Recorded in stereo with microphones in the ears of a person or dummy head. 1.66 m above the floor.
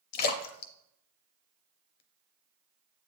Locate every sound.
0.1 s a splash: 55° left (ahead or behind), 0.6 m